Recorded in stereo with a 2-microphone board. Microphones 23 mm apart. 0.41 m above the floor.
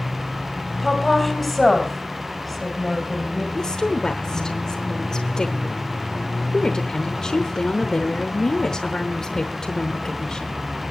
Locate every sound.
0.8 s a woman speaking: 5° right (ahead or behind), 2.5 m
3.5 s a woman speaking: 30° left (ahead or behind), 1.0 m